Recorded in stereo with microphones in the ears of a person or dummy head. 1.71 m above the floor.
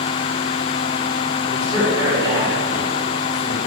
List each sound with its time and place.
1.5 s a man speaking: 20° right (ahead or behind), 6.5 m